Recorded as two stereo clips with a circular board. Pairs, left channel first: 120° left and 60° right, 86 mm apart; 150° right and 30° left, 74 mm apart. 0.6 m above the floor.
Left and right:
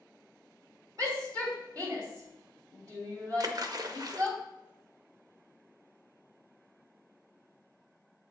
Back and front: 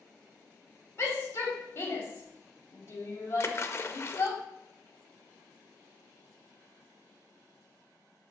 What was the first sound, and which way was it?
A shout, 100° right.